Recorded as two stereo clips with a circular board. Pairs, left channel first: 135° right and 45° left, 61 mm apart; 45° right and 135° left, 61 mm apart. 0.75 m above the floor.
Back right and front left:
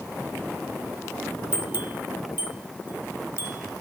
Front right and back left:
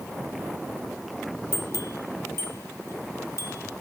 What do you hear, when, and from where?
1.5 s a bell: 10° right, 1.1 m